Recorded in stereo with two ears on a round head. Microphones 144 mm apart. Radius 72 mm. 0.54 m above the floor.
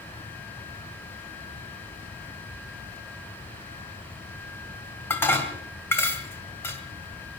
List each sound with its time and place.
2.9 s a squeak: centre (ahead or behind), 6.5 m
5.1 s dishes clattering: 15° left (ahead or behind), 2 m